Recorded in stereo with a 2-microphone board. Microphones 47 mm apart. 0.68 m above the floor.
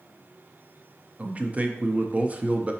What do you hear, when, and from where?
1.2 s a man speaking: 30° right (ahead or behind), 0.5 m